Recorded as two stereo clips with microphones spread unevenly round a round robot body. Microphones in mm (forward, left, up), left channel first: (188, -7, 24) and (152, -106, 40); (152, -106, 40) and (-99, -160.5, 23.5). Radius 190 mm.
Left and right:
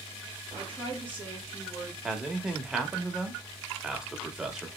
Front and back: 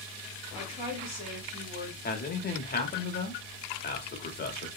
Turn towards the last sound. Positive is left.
turn(degrees=-20)